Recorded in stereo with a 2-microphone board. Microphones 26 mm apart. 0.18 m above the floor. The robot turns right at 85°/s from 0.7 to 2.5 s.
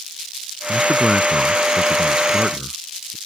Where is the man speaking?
170° left; by 3.2 s 35° right.